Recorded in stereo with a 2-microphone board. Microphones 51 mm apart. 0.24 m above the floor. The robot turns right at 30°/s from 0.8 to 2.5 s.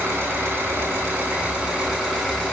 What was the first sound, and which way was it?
An engine running, 40° right.